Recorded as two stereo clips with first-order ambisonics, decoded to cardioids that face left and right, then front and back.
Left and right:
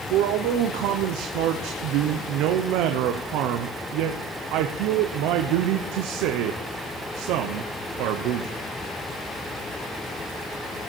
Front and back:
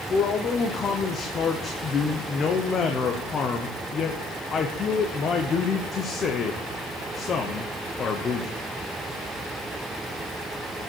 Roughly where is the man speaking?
Ahead right.